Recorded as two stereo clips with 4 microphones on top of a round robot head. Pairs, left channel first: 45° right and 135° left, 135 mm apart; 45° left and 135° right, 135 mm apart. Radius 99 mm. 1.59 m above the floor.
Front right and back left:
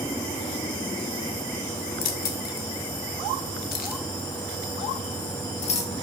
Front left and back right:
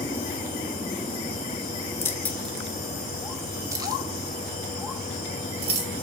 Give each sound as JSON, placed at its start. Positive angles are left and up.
{"t": 2.0, "sound": "keys jangling", "azimuth_deg": -25, "distance_m": 1.6}